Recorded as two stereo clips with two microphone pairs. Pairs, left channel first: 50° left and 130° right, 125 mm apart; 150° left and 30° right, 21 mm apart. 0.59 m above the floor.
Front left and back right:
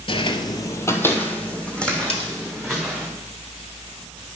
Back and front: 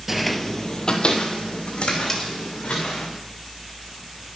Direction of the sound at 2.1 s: 90° left.